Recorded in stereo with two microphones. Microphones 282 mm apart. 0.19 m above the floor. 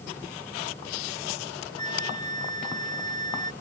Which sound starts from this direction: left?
A flute, at 1.8 s.